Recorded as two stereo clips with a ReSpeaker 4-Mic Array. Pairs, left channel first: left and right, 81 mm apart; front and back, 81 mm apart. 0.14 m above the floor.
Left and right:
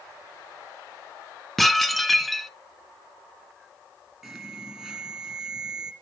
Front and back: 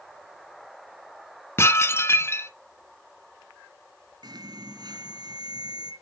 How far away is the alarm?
About 2 m.